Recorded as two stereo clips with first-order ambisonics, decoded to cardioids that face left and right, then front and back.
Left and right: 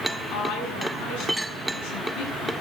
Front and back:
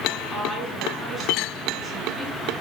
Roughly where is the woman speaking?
Left.